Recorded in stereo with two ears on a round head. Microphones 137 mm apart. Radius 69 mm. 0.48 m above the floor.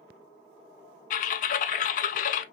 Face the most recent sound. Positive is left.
turn(degrees=55)  # may be behind; listen again after turning